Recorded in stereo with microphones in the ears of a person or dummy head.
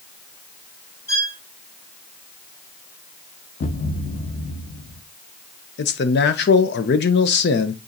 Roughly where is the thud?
Left.